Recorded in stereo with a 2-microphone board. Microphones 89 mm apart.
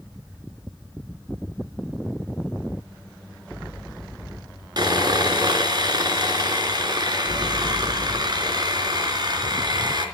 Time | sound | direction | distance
4.8 | sawing | 50° right (ahead or behind) | 3 m